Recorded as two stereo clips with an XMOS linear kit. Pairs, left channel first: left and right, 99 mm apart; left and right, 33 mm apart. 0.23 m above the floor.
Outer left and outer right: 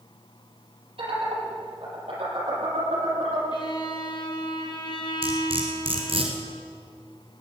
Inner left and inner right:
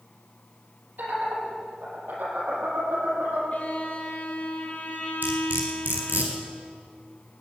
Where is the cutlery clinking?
65° right (ahead or behind), 2.5 m.